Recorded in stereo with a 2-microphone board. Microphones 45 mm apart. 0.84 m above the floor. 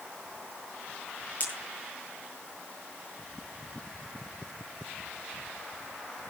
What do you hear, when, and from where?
1.4 s a pop: 40° left (ahead or behind), 9.5 m